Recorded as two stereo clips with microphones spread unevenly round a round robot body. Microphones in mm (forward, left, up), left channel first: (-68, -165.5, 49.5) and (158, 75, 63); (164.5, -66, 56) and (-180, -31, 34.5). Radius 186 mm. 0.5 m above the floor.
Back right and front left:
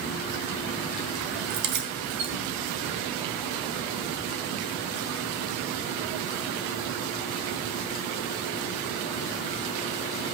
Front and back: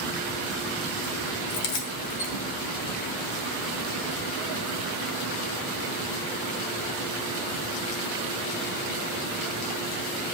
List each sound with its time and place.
1.5 s keys jangling: 20° left, 2.5 m